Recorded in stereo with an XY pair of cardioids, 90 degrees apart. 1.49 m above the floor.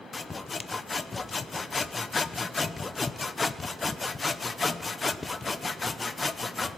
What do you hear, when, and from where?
0.1 s sawing: 30° left, 0.8 m